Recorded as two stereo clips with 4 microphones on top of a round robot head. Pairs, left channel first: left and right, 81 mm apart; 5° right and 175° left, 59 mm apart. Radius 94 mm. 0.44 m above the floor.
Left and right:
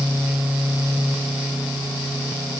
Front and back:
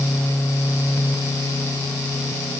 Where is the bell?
No bell in this recording.